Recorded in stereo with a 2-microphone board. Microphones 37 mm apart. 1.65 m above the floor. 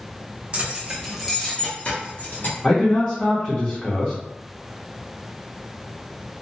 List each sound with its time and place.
0.5 s keys jangling: 30° right (ahead or behind), 0.8 m; by 2.5 s 55° left (ahead or behind), 1.1 m
2.6 s a man speaking: 25° left (ahead or behind), 0.7 m